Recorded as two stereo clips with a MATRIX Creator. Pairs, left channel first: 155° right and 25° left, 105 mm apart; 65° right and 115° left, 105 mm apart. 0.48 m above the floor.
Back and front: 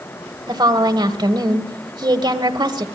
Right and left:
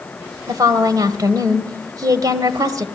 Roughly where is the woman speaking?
Ahead left.